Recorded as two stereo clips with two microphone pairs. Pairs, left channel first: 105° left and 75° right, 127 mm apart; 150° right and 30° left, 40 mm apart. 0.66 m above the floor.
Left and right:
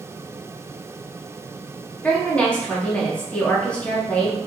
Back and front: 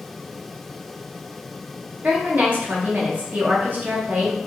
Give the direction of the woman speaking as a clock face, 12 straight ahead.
11 o'clock.